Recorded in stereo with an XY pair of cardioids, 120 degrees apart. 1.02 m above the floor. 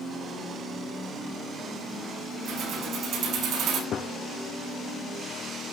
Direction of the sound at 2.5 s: 55° right.